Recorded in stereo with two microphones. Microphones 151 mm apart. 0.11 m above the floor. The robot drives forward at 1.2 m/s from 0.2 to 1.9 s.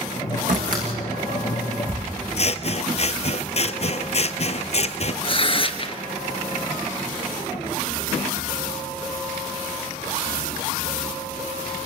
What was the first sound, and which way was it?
A door slam, 65° right (ahead or behind).